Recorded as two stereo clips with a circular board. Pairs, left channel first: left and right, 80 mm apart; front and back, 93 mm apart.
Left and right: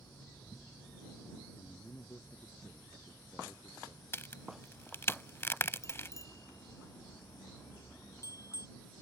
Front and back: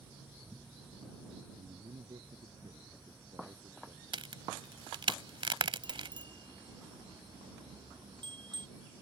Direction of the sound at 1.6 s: 145° left.